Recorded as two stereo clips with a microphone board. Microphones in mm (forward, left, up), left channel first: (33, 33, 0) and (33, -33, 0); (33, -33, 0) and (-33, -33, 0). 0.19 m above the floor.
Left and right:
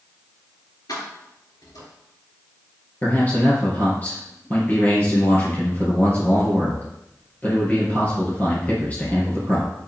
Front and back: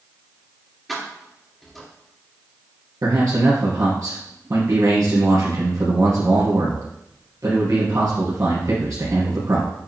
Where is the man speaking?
155° left, 3 m.